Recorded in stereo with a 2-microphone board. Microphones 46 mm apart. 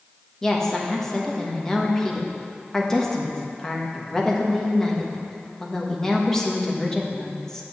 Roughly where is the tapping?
I don't hear tapping.